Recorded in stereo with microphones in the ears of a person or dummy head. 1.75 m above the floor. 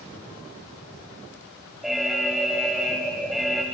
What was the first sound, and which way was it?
An alarm, centre (ahead or behind).